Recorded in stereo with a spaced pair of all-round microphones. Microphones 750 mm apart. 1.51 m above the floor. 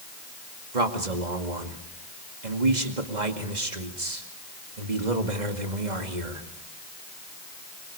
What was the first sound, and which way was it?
A man speaking, 65° right (ahead or behind).